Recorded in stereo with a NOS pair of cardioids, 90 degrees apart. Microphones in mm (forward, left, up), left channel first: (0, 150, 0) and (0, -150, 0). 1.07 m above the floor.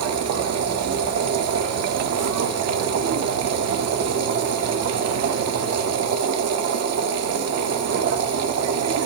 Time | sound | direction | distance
0.0 | a machine running | 65° right | 1.3 m